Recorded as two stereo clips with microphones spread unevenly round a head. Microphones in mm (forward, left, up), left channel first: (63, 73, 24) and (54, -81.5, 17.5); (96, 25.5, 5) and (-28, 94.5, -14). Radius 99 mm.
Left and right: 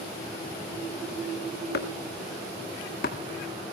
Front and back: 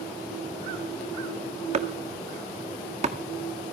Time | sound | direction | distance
1.7 | chopping | 115° left | 1.7 m